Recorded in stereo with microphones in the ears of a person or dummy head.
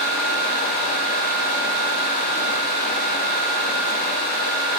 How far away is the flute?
No flute in this recording.